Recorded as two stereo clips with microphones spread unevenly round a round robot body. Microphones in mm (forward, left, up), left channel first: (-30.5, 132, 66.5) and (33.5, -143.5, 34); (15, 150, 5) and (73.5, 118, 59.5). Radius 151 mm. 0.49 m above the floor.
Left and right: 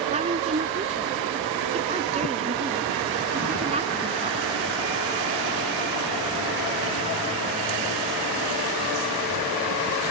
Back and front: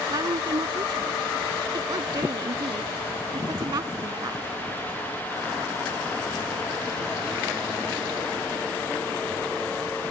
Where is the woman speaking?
10° right.